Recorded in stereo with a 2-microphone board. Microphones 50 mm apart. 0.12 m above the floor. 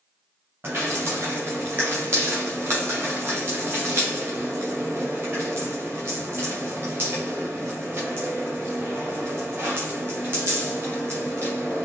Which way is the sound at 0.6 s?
45° right (ahead or behind).